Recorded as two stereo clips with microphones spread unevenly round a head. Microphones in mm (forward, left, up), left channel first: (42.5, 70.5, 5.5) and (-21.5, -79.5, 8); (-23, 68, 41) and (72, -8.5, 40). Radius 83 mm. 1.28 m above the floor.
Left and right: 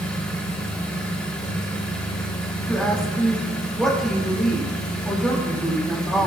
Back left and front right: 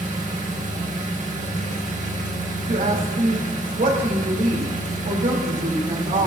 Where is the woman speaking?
20° right, 2.5 m.